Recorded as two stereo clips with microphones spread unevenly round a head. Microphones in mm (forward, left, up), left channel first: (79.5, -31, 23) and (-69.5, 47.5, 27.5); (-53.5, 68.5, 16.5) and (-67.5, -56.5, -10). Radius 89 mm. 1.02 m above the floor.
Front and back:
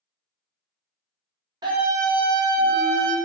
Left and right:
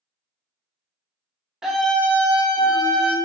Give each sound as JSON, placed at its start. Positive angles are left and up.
{"t": 1.6, "sound": "a scream", "azimuth_deg": -155, "distance_m": 0.5}